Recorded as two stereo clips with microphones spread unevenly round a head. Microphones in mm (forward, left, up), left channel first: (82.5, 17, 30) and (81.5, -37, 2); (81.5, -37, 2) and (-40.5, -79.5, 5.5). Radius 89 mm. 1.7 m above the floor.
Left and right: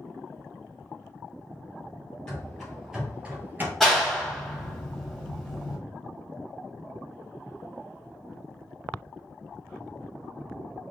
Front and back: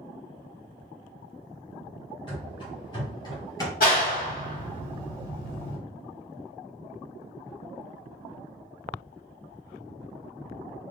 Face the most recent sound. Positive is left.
turn(degrees=15)